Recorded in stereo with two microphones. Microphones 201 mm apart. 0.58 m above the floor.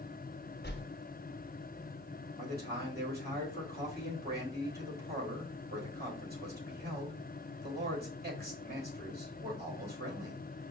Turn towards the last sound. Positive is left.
turn(degrees=-50)  # may be behind; listen again after turning